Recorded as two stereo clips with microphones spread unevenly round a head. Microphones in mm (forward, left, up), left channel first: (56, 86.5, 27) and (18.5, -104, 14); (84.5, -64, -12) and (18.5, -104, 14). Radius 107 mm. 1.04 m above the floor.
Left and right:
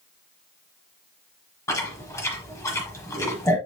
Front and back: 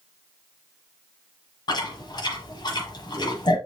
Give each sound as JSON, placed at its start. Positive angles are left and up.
{"t": 1.7, "sound": "chewing", "azimuth_deg": 15, "distance_m": 1.1}